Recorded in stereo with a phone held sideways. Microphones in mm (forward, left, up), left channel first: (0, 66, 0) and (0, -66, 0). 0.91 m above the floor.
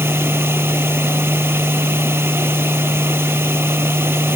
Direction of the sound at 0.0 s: 20° right (ahead or behind).